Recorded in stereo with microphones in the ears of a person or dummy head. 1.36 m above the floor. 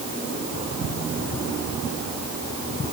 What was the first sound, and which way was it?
Only background noise.